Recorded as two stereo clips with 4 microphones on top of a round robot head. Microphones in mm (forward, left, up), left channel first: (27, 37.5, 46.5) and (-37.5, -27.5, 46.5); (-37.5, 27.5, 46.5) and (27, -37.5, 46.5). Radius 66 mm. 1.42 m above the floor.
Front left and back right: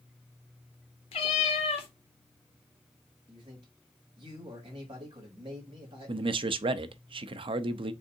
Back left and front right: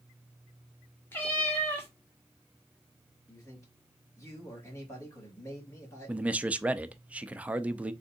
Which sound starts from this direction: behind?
A man speaking, at 3.3 s.